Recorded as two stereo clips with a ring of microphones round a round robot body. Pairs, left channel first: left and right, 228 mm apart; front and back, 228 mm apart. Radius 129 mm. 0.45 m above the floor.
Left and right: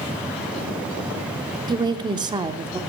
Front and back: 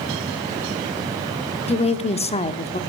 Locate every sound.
1.7 s a woman speaking: 35° right, 0.8 m